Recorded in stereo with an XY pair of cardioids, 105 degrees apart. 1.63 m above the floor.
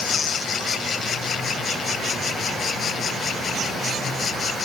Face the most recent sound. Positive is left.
No sound to turn to.